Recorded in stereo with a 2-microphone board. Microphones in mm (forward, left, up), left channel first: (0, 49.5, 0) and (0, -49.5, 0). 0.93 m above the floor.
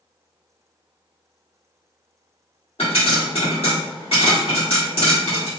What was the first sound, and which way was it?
A pop, 70° left (ahead or behind).